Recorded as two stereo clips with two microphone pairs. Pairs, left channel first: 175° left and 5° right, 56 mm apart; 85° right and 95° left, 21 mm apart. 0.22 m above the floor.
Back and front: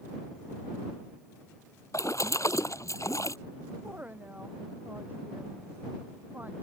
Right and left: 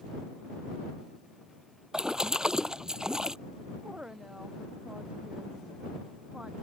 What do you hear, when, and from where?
1.9 s a splash: 150° left
3.8 s a woman speaking: 55° left